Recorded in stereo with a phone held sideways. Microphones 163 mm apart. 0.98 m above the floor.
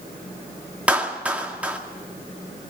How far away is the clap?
About 2 m.